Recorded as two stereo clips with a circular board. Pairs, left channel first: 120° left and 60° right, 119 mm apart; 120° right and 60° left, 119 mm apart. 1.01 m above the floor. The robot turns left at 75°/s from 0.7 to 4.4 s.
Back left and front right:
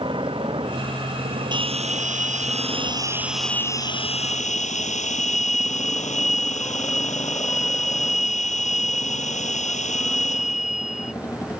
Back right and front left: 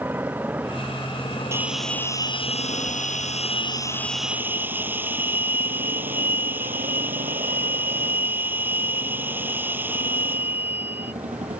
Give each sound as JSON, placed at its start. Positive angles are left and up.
{"t": 0.0, "sound": "a motorcycle", "azimuth_deg": -15}
{"t": 1.5, "sound": "a bell", "azimuth_deg": -10}